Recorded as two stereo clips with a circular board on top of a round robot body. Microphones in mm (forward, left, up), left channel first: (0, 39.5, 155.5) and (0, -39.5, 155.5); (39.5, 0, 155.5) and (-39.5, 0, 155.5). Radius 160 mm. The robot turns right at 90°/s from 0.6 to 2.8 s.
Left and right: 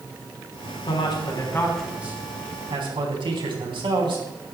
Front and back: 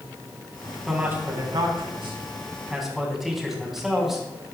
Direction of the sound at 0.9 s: 90° left.